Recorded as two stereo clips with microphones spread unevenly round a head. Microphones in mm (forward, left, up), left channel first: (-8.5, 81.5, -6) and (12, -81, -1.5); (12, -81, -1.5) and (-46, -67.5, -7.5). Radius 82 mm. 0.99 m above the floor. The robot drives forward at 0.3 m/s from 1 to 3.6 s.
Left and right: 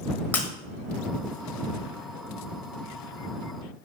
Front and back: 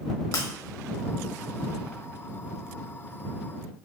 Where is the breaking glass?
20° left, 1.4 m.